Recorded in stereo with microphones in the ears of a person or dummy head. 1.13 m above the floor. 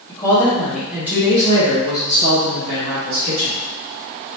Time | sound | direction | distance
0.1 | a woman speaking | 15° left (ahead or behind) | 1.4 m